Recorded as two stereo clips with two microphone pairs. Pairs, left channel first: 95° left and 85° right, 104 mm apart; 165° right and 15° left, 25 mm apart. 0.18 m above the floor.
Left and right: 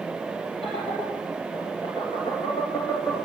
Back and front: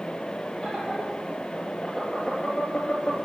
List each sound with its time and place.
0.6 s laughter: 115° left, 4.5 m; by 3.2 s 165° left, 2.5 m